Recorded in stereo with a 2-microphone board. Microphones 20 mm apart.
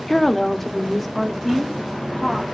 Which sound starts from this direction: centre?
A woman speaking, at 0.1 s.